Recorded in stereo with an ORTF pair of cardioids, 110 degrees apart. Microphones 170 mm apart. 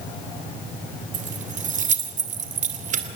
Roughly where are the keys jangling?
Ahead right.